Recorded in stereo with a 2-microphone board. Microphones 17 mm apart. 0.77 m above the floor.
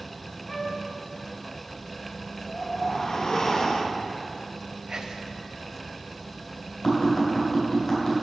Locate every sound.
0.5 s a flute: 15° left (ahead or behind), 0.9 m
2.4 s a whoosh: 40° left (ahead or behind), 0.6 m
4.9 s whispering: 45° right (ahead or behind), 0.6 m
6.8 s tapping: 50° left (ahead or behind), 3 m